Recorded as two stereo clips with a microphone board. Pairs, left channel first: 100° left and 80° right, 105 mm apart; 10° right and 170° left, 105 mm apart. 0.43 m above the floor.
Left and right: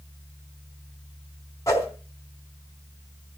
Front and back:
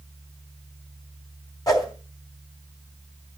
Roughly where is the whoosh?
Ahead left.